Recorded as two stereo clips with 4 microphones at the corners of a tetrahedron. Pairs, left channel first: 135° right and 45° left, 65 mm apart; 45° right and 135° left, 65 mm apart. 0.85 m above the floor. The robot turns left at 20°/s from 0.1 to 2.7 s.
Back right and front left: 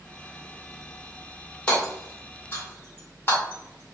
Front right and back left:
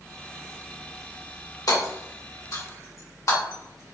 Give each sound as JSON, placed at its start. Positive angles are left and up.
{"t": 1.7, "sound": "hammering", "azimuth_deg": -60, "distance_m": 1.9}